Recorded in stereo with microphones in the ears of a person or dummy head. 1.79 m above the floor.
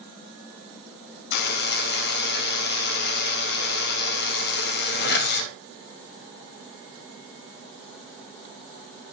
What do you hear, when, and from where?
1.3 s a buzzer: 65° left (ahead or behind), 2 m